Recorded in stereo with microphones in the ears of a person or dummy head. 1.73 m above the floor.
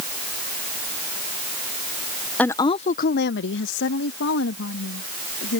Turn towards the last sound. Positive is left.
turn(degrees=70)  # may be behind; listen again after turning